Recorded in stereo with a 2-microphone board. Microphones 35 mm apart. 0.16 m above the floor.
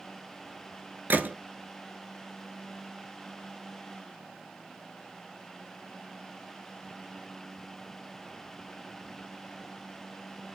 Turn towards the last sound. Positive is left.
turn(degrees=-70)  # may be behind; listen again after turning